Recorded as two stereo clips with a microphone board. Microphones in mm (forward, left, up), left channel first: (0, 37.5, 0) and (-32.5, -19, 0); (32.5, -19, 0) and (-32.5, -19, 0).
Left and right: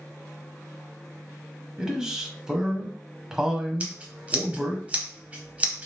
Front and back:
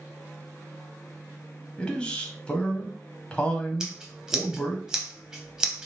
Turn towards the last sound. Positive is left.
turn(degrees=-115)